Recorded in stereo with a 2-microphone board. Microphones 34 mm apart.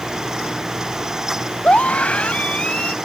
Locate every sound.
1.6 s a scream: 45° left (ahead or behind); by 3.0 s 40° left (ahead or behind)